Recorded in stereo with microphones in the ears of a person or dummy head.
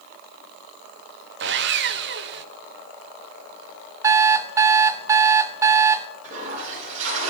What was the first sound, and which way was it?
Sawing, 55° right (ahead or behind).